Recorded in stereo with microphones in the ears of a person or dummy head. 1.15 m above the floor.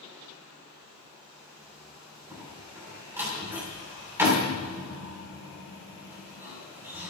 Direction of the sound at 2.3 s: 10° right (ahead or behind).